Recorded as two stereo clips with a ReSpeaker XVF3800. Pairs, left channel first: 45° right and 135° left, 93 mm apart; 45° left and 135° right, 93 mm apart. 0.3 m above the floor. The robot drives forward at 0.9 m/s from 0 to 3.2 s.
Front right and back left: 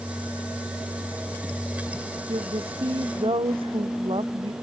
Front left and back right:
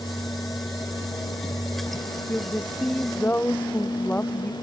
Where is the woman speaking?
115° left.